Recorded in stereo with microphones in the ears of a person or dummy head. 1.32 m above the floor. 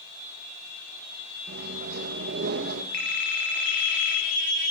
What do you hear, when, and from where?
1.5 s a microwave: 65° right (ahead or behind), 1.2 m
2.9 s a phone ringing: 65° left (ahead or behind), 2.5 m